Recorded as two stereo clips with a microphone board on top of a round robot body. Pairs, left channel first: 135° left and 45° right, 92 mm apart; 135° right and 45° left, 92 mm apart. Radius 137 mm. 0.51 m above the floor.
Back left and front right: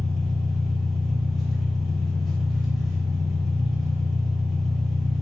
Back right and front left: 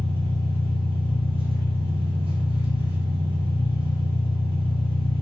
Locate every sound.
0.0 s an engine running: 45° left, 1.0 m